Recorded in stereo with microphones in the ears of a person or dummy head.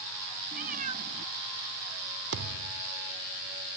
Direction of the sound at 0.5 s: 45° right (ahead or behind).